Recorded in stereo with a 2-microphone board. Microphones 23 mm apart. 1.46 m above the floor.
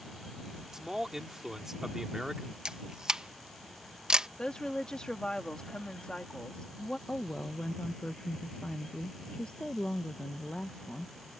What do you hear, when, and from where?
0.7 s a man speaking: 20° right (ahead or behind)
2.6 s a camera shutter: 35° right (ahead or behind)
4.4 s a woman speaking: 40° left (ahead or behind)
7.1 s a woman speaking: 60° left (ahead or behind)